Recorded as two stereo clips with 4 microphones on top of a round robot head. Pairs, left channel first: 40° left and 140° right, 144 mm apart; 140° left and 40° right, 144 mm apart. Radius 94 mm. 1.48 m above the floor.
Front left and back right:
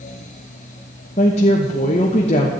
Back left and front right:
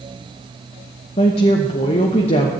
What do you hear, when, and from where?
1.2 s a woman speaking: 90° left, 1.0 m